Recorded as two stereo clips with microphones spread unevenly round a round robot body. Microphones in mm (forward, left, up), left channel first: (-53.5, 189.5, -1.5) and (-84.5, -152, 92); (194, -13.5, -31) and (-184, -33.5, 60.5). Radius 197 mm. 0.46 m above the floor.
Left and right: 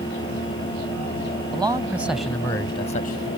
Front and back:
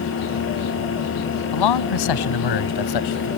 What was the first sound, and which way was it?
A man speaking, 15° right.